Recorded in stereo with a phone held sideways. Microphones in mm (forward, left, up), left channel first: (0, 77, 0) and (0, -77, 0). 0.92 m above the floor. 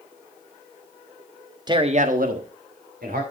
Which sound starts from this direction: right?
A man speaking, at 1.7 s.